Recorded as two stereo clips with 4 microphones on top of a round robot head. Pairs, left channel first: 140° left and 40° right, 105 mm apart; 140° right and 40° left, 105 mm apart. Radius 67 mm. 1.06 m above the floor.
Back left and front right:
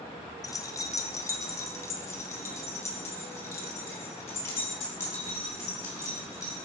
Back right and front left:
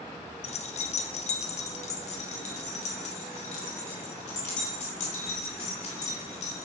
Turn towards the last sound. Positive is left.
turn(degrees=-155)